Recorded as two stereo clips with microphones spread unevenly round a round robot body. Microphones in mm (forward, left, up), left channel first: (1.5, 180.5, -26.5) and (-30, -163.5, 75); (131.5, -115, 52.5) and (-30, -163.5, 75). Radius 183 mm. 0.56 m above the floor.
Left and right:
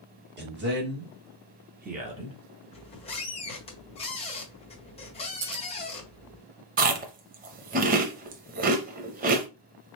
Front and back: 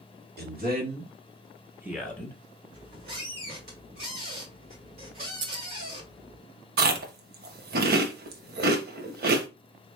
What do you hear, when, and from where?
0.4 s a man speaking: 165° right, 1.8 m; by 2.4 s straight ahead, 1.1 m
2.7 s a squeak: 150° left, 1.5 m
5.4 s scissors: 145° right, 0.8 m
6.8 s chewing: 155° right, 0.6 m